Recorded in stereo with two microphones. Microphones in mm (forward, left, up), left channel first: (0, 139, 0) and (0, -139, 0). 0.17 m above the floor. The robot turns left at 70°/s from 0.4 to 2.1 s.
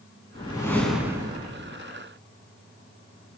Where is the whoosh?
35° left, 0.7 m; by 1.8 s 60° right, 0.7 m.